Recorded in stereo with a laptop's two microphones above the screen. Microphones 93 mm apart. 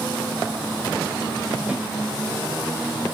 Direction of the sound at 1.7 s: 15° right (ahead or behind).